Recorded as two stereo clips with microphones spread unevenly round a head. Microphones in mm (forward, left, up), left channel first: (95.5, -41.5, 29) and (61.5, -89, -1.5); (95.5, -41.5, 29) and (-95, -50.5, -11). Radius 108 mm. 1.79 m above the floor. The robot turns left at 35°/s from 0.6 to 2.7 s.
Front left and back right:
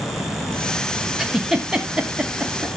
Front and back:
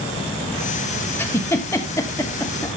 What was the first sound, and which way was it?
A giggle, 35° left.